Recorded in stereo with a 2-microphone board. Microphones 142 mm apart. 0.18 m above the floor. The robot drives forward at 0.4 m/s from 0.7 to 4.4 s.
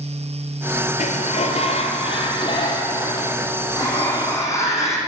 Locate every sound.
1.0 s a sliding door: 65° left (ahead or behind), 0.7 m; by 5.0 s 20° left (ahead or behind), 1.8 m